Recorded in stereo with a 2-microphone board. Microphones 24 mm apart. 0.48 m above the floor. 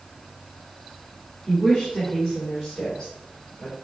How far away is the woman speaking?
About 1.2 m.